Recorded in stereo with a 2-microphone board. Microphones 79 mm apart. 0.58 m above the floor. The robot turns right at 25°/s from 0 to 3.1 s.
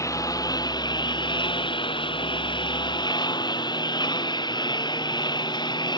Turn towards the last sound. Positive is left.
turn(degrees=115)